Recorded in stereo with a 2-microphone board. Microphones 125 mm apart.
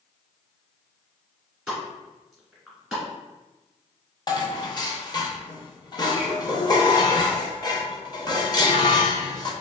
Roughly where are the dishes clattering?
Left.